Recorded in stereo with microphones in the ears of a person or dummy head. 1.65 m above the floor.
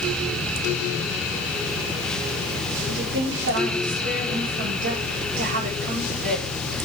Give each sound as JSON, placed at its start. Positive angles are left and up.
{"t": 2.9, "sound": "a woman speaking", "side_deg": -60, "distance_m": 5.0}